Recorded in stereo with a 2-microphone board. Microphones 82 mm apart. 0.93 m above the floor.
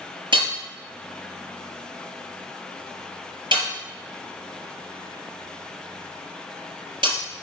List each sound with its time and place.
0.3 s hammering: 75° right (ahead or behind), 4.5 m